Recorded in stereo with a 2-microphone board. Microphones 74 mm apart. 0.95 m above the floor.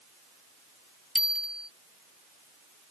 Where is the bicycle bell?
5° right (ahead or behind).